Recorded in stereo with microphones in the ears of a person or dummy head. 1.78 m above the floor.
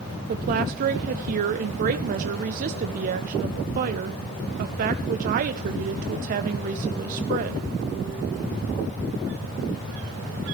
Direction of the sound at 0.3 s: 50° right (ahead or behind).